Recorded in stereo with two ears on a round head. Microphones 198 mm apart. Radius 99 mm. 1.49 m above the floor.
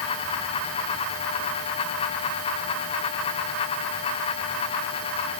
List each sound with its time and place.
Only background noise.